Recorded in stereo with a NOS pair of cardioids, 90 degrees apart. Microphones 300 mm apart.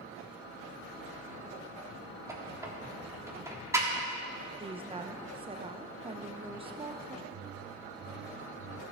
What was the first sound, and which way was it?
A squeak, 10° right.